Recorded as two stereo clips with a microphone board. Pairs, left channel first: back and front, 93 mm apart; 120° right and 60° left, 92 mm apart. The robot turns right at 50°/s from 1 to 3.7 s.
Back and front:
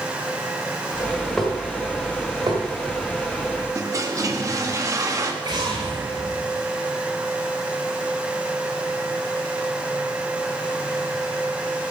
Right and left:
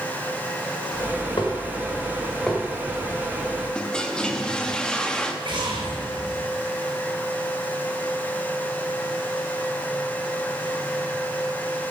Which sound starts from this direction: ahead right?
A toilet flushing, at 3.8 s.